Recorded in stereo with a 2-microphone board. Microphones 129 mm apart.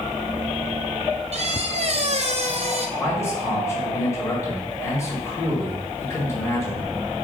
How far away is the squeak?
About 0.7 m.